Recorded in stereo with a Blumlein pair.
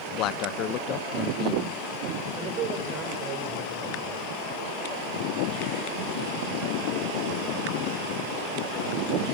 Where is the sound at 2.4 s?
30° right, 6 m.